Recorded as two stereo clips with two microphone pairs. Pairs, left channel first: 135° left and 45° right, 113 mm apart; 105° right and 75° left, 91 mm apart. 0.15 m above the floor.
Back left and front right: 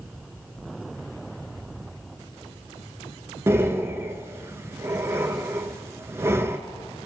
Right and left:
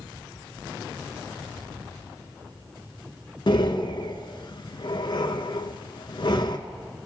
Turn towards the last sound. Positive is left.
turn(degrees=-105)